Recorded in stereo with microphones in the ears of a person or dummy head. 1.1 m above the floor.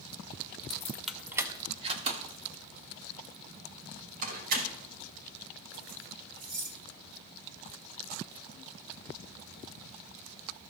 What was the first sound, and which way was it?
Keys jangling, 30° left (ahead or behind).